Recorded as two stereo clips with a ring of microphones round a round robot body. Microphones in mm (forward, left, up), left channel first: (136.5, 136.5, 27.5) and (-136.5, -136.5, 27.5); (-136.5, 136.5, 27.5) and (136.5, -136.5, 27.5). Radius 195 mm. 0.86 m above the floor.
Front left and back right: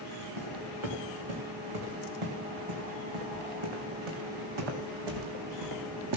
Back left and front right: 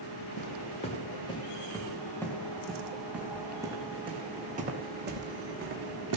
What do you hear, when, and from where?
0.4 s footsteps: 150° right, 4 m; by 6.2 s 95° right, 3 m